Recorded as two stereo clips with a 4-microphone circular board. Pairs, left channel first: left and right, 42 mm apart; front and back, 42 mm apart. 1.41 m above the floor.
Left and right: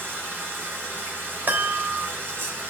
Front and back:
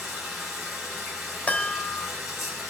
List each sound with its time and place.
0.0 s running water: 95° right, 9 m
1.5 s a chime: 55° right, 3.5 m